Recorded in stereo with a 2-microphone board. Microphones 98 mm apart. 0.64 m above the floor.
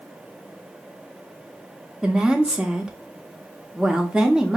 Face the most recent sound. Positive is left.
turn(degrees=-10)  # may be behind; listen again after turning